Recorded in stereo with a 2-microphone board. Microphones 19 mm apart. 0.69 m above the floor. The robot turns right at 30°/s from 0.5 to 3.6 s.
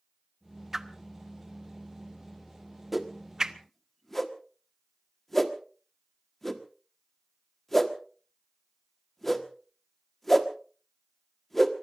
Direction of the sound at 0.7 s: 20° right (ahead or behind).